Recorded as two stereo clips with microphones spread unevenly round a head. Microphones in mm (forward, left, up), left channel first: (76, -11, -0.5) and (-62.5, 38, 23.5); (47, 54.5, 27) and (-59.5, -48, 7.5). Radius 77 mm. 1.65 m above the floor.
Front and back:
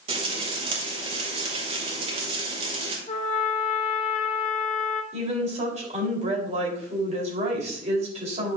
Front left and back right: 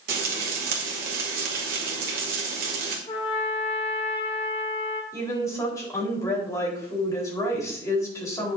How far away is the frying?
About 2 m.